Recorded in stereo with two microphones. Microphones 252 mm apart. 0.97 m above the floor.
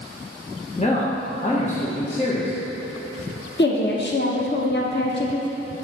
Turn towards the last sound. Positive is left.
turn(degrees=45)  # may be behind; listen again after turning